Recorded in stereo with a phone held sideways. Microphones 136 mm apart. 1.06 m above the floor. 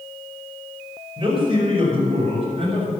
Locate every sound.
1.2 s a man speaking: 40° right (ahead or behind), 5.5 m; by 3.0 s 45° right (ahead or behind), 7.5 m